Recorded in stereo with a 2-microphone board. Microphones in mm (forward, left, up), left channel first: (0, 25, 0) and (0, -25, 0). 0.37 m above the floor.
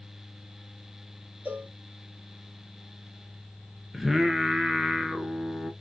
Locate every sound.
1.4 s a cowbell: 35° right (ahead or behind), 1.4 m
3.9 s singing: 10° right (ahead or behind), 0.7 m